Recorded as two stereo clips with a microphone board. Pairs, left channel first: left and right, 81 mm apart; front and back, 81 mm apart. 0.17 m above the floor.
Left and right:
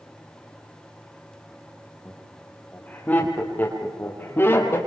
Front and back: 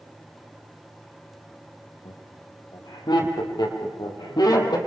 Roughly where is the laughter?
Ahead.